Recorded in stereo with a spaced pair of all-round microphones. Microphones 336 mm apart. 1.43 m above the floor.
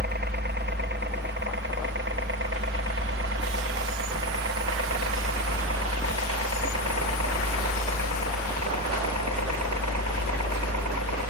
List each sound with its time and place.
0.0 s a helicopter: 30° right (ahead or behind); by 11.3 s 55° right (ahead or behind)